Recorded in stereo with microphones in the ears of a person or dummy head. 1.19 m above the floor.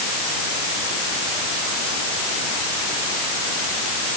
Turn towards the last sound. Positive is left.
No sound to turn to.